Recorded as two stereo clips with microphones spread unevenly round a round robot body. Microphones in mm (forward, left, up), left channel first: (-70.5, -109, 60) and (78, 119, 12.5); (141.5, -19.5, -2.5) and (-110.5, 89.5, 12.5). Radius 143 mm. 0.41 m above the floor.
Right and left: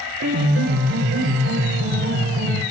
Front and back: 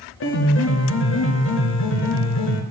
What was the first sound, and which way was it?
A piano, 15° left.